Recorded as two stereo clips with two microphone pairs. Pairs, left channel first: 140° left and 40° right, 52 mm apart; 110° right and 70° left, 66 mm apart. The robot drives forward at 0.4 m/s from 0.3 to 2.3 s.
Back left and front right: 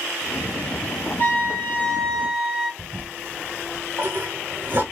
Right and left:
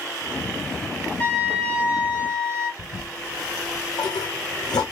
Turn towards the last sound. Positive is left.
turn(degrees=-95)